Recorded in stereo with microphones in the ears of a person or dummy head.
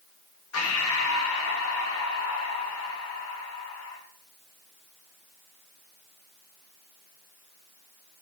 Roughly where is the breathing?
Left.